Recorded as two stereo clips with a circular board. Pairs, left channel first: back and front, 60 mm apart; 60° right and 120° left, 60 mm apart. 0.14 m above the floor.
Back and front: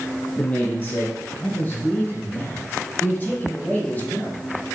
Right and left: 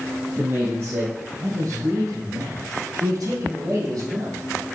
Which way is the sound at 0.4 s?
135° left.